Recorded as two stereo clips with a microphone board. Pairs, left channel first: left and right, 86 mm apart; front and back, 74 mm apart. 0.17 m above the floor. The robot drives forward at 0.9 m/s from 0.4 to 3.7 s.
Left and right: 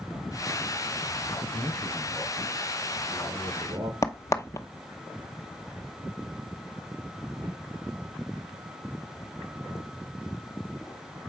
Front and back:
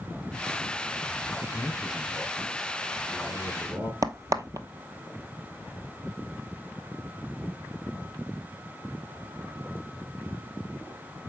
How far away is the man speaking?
About 4 m.